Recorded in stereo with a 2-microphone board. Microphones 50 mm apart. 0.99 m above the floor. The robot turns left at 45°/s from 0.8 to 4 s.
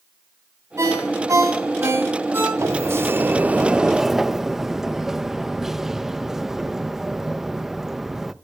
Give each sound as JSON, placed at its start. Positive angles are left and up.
{"t": 0.8, "sound": "a ringtone", "azimuth_deg": -70, "distance_m": 6.5}
{"t": 2.6, "sound": "a sliding door", "azimuth_deg": -110, "distance_m": 0.6}